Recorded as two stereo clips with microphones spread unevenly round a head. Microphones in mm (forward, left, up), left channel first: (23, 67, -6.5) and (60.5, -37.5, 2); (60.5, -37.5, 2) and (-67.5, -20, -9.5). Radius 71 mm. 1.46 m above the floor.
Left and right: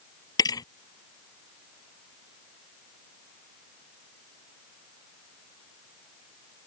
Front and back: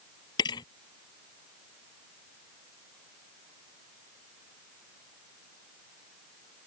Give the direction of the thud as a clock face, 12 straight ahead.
10 o'clock.